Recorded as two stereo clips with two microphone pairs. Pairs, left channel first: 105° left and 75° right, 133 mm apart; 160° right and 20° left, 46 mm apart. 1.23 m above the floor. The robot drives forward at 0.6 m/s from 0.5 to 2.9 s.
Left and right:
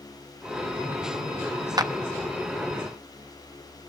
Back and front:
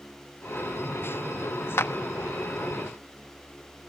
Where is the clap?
135° right, 1.1 m.